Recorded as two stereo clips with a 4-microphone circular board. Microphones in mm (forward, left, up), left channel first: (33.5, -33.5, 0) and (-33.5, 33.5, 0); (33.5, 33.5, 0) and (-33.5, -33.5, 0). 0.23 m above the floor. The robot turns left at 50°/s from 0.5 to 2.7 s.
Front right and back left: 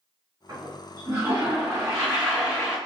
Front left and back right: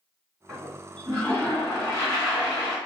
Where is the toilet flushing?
150° left, 1.7 m; by 2.8 s 40° left, 1.7 m.